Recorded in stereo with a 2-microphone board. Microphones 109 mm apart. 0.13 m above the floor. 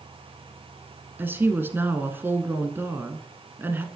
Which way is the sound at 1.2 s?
20° right (ahead or behind).